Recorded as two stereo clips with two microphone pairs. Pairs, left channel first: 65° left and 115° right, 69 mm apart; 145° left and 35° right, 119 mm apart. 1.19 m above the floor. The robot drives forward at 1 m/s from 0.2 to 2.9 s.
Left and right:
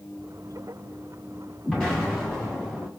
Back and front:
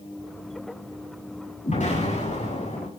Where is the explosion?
140° left, 9 m; by 2.9 s 145° left, 10 m.